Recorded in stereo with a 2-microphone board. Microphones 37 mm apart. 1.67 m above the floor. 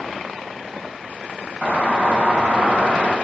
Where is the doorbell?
45° right (ahead or behind), 2.5 m.